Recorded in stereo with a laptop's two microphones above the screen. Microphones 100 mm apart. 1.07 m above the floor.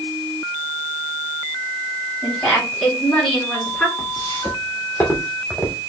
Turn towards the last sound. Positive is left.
turn(degrees=5)  # may be behind; listen again after turning